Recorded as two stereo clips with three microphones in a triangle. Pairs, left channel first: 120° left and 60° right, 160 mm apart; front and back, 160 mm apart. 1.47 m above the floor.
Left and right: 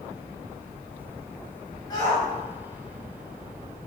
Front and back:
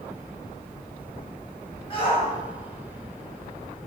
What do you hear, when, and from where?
1.9 s a shout: 55° left, 7 m